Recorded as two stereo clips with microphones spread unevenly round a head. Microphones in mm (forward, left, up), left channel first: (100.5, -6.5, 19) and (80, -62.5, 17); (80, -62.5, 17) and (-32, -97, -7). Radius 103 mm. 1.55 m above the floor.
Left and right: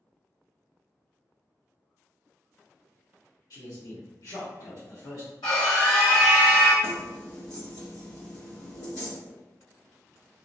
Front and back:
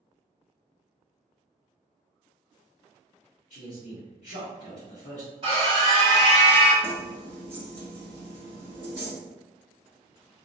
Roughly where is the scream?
Behind left.